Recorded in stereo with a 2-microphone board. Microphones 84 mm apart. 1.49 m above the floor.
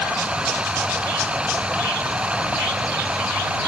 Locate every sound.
0.0 s running water: 15° right (ahead or behind)